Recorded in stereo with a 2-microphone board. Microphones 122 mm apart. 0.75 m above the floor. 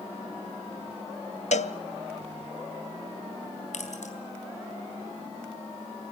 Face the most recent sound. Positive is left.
turn(degrees=80)